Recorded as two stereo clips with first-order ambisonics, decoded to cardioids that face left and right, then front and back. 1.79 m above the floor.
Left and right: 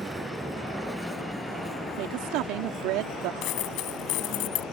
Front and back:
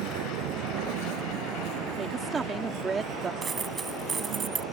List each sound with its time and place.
0.0 s a vehicle: 170° right; by 4.7 s 150° left
2.0 s a woman speaking: 105° right
3.4 s a dropped coin: 110° left